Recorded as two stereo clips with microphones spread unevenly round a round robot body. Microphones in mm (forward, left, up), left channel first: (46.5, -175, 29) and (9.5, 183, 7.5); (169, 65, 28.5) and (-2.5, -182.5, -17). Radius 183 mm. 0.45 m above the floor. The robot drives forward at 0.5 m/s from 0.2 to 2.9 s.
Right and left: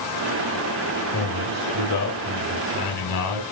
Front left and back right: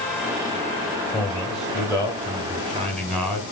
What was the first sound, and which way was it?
A man speaking, 40° right.